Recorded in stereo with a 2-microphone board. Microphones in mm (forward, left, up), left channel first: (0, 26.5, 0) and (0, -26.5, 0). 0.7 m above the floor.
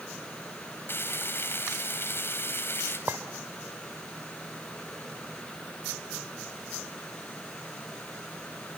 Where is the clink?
50° right (ahead or behind), 1.8 m.